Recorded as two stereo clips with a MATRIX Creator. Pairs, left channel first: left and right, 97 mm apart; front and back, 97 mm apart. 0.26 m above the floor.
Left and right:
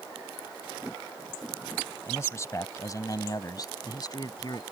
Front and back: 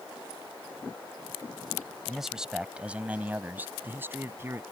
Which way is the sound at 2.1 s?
95° left.